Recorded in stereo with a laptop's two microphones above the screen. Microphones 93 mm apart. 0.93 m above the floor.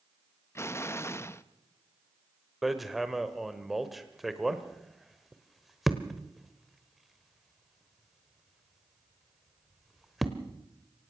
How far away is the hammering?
About 1.1 m.